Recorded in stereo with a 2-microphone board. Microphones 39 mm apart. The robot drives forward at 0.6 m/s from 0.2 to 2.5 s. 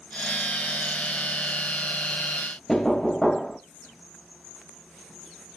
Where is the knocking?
5° left (ahead or behind), 0.9 m.